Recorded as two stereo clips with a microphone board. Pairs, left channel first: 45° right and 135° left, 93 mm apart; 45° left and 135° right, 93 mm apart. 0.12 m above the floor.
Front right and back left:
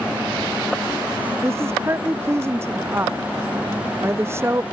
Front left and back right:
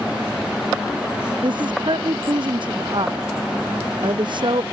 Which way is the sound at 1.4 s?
165° right.